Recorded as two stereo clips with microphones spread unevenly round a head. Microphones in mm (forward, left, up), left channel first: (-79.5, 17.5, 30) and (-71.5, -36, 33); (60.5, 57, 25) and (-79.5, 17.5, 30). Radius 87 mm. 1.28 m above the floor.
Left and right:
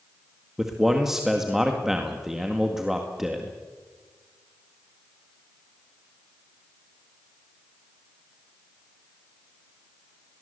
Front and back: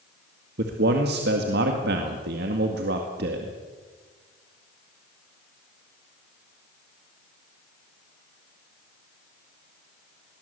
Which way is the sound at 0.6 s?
165° right.